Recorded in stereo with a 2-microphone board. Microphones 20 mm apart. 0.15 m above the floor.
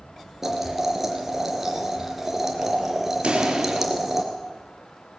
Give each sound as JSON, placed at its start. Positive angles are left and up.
{"t": 0.4, "sound": "boiling", "side_deg": -15, "distance_m": 3.0}
{"t": 3.2, "sound": "a pop", "side_deg": -60, "distance_m": 3.5}